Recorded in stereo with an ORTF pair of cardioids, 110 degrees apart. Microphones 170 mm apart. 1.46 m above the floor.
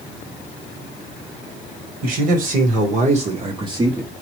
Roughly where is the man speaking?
Ahead right.